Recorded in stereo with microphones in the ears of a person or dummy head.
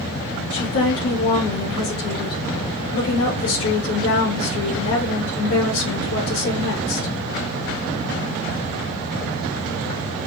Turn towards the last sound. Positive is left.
turn(degrees=85)